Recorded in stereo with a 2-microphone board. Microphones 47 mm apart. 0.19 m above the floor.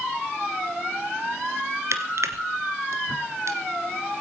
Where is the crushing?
70° right (ahead or behind), 1.6 m.